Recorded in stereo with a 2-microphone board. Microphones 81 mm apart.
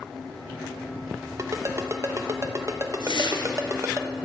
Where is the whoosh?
70° left (ahead or behind), 0.9 m.